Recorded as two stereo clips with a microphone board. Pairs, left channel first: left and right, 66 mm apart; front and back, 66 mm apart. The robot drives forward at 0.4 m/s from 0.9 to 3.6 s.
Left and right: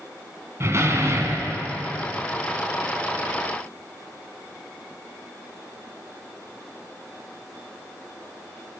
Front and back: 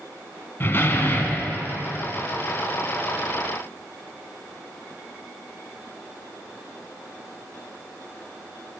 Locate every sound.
0.6 s a door slam: 50° right, 1.6 m; by 1.6 s 60° right, 1.5 m